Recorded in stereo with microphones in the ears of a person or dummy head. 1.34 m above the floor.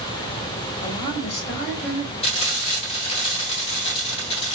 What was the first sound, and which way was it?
A woman speaking, 35° left (ahead or behind).